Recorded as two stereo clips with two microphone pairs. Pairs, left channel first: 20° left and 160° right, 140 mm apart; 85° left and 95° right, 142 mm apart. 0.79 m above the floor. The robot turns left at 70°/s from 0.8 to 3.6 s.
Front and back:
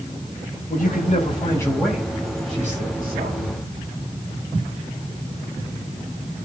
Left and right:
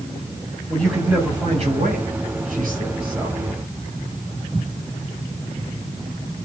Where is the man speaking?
5° left, 5.5 m; by 3.6 s 170° left, 5.5 m.